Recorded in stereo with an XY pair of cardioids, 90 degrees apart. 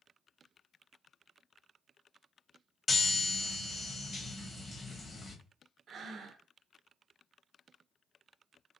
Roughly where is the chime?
Ahead left.